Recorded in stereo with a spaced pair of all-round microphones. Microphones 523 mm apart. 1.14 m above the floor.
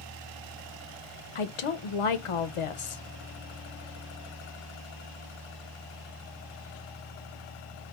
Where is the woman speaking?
75° left (ahead or behind), 0.5 m.